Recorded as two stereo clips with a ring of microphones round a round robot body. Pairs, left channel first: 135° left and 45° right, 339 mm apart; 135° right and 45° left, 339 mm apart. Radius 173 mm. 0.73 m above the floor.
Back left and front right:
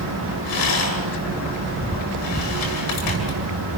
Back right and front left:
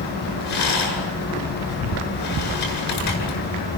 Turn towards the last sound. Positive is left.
turn(degrees=180)